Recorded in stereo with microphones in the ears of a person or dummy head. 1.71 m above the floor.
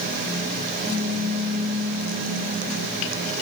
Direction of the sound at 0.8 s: 15° right (ahead or behind).